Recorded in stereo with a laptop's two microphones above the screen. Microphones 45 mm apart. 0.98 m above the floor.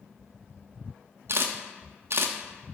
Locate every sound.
1.3 s a camera shutter: 65° right (ahead or behind), 0.6 m